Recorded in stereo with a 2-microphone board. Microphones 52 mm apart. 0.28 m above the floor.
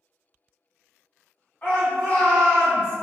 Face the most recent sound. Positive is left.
turn(degrees=30)  # may be behind; listen again after turning